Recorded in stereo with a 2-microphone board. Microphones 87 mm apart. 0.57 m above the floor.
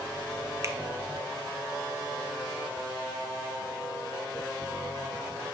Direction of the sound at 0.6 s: 35° right (ahead or behind).